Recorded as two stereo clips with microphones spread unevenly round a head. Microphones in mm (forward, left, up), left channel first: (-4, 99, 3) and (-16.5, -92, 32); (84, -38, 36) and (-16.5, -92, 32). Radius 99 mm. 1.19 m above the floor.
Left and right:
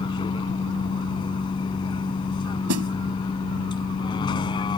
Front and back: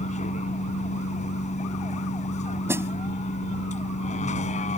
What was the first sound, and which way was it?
A vehicle, 15° left.